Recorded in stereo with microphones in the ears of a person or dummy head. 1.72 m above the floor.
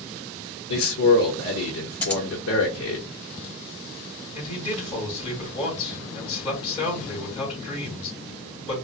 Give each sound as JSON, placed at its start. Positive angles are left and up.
{"t": 0.7, "sound": "a man speaking", "side_deg": 75, "distance_m": 0.9}
{"t": 2.0, "sound": "scissors", "side_deg": 10, "distance_m": 0.5}
{"t": 4.3, "sound": "a man speaking", "side_deg": 35, "distance_m": 2.5}